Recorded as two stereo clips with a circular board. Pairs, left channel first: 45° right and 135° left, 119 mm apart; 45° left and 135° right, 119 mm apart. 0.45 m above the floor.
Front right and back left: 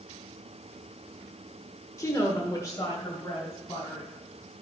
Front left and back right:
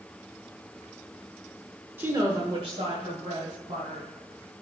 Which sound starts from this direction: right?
A woman speaking, at 2.0 s.